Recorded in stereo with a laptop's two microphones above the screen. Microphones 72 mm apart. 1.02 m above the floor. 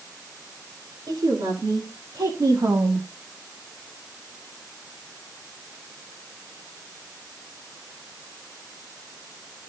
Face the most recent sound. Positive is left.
turn(degrees=-40)  # may be behind; listen again after turning